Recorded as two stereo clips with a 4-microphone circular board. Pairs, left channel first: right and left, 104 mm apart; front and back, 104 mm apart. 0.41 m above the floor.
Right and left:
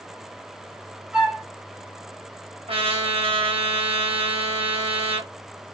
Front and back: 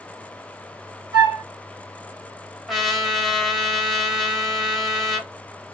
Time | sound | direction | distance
1.1 | a flute | 170° left | 1.7 m
2.7 | a trumpet | 90° left | 1.2 m